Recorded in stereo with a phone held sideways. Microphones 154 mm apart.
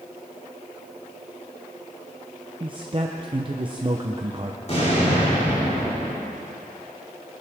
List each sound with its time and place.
2.6 s a man speaking: 35° right (ahead or behind), 0.8 m
4.7 s an explosion: 50° left (ahead or behind), 4.5 m